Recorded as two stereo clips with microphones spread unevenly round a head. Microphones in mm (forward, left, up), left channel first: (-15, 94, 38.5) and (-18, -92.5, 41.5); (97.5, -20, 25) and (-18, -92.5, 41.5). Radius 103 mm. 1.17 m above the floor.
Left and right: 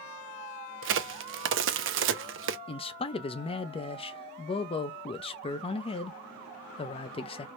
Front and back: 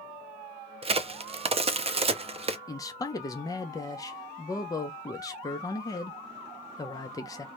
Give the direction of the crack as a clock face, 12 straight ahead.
3 o'clock.